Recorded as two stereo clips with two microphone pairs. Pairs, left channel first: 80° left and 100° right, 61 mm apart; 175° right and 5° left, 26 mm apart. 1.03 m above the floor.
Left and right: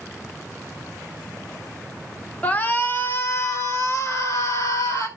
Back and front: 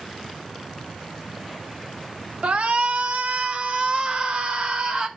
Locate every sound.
2.4 s a shout: 20° left, 1.2 m; by 5.1 s 55° left, 3 m